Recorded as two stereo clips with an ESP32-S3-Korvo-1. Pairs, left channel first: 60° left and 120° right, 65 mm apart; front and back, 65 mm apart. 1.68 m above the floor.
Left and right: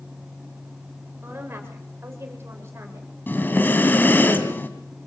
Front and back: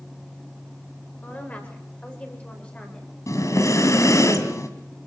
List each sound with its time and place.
1.2 s a woman speaking: 65° right, 8.5 m; by 3.1 s 75° right, 8 m
3.3 s breathing: 10° left, 2.5 m